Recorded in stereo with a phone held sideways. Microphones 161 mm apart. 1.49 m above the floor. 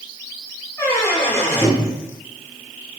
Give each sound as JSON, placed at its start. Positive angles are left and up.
{"t": 0.8, "sound": "a squeak", "side_deg": 15, "distance_m": 1.1}